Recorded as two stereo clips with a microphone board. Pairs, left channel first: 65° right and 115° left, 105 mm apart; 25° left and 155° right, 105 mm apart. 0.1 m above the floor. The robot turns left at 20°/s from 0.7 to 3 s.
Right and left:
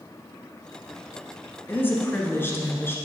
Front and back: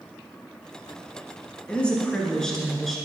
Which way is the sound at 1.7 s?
35° right.